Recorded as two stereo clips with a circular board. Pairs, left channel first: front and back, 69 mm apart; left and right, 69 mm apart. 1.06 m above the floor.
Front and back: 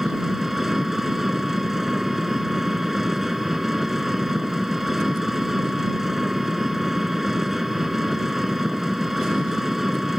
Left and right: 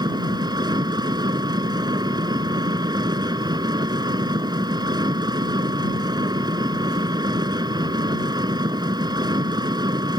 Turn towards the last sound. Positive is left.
turn(degrees=-95)